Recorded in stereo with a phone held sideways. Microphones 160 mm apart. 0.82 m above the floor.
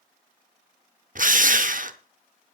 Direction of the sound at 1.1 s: 60° right (ahead or behind).